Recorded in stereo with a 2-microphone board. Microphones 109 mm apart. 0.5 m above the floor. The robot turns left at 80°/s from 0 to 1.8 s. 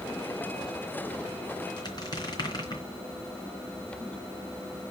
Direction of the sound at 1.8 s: 45° left (ahead or behind).